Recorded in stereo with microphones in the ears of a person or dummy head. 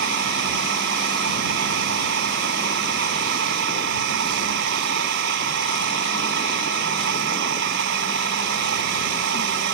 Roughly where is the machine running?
Right.